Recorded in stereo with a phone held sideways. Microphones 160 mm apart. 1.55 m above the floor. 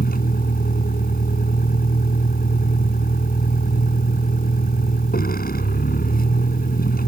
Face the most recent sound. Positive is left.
turn(degrees=65)  # may be behind; listen again after turning